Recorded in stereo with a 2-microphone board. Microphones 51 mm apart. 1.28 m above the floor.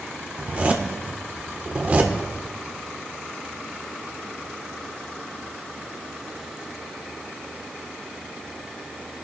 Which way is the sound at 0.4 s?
30° right (ahead or behind).